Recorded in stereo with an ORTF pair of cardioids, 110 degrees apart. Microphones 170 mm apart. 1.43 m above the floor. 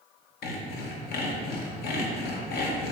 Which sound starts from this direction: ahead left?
Sawing, at 0.4 s.